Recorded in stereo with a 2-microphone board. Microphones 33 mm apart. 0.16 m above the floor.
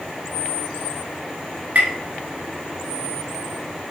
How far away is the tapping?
About 1.2 m.